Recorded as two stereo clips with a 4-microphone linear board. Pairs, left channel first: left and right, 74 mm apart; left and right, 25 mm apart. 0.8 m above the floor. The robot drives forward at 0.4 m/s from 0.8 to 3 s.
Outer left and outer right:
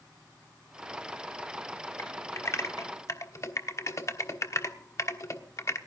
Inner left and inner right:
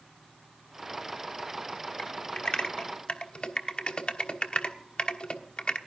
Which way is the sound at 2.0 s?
40° left (ahead or behind).